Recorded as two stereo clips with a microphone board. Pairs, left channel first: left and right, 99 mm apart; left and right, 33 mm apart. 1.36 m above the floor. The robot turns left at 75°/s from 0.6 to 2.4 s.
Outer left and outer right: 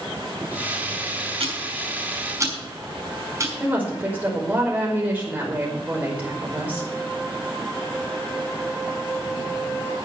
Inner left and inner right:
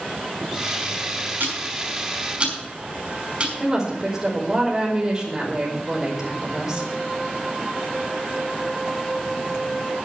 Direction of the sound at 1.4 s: 75° right (ahead or behind).